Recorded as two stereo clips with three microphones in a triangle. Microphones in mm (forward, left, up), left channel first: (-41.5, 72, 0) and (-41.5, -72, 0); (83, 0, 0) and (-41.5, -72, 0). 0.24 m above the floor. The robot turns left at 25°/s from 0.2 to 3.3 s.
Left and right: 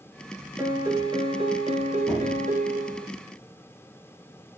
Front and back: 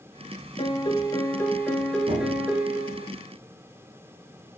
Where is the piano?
20° right, 1.8 m; by 3.1 s 85° right, 1.8 m.